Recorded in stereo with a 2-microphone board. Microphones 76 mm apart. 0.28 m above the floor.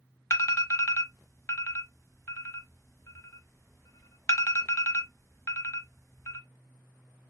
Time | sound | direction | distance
0.3 | an alarm | 40° left (ahead or behind) | 0.8 m